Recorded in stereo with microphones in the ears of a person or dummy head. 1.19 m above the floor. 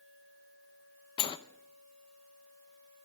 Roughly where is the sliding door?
Left.